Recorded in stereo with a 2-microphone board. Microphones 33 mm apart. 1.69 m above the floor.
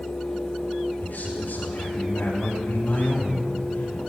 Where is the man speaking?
85° left, 7.5 m; by 4.0 s 90° left, 10 m.